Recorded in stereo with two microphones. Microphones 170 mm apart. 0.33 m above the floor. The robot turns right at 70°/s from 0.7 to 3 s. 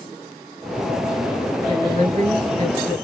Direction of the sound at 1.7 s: 135° right.